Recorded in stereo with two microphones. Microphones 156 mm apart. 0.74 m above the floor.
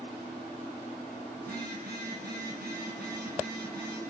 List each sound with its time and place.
1.4 s a phone buzzing: 85° right, 4 m